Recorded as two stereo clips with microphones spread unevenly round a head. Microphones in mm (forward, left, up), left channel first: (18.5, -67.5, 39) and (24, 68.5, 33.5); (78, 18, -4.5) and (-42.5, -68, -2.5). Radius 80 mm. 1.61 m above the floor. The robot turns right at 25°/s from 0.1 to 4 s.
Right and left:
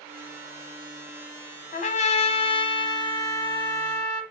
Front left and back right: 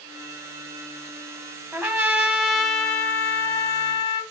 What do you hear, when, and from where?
1.7 s a trumpet: 75° right, 1.0 m; by 4.2 s 20° right, 1.0 m